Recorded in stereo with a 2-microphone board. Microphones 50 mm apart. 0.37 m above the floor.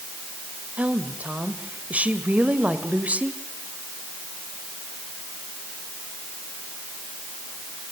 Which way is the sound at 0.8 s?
30° right (ahead or behind).